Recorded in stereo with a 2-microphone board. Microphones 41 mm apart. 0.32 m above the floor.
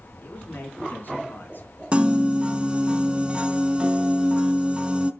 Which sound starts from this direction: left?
A man speaking, at 0.2 s.